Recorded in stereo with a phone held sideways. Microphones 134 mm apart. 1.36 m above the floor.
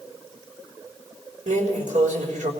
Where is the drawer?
80° right, 3.5 m.